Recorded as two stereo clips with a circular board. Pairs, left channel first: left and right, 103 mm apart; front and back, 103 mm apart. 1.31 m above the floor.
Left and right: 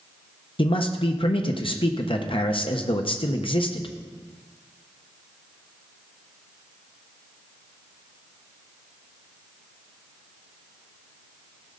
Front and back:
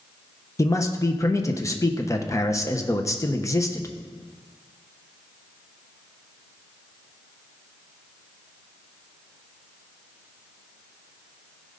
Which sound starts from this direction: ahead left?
A man speaking, at 0.6 s.